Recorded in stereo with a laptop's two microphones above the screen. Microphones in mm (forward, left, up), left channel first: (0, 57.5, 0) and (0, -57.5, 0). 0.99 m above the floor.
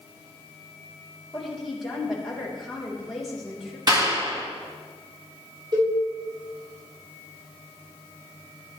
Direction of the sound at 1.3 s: Centre (ahead or behind).